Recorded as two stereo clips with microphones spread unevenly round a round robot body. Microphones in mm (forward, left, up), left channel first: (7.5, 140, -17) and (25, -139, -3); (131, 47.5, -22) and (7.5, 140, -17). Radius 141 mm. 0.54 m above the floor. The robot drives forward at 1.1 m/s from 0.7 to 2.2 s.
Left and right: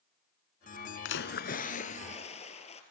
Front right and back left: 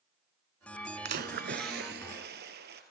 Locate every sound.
1.1 s a splash: 140° left, 1.0 m; by 2.8 s 165° left, 2 m